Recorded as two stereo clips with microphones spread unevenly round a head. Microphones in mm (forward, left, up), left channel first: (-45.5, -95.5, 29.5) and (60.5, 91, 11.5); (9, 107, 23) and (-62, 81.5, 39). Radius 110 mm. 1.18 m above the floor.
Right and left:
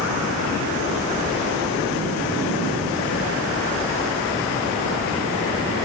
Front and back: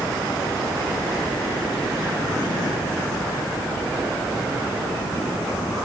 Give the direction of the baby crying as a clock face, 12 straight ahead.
No baby crying in this recording.